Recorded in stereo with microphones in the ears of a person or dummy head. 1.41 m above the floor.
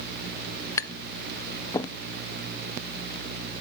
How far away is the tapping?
About 0.8 m.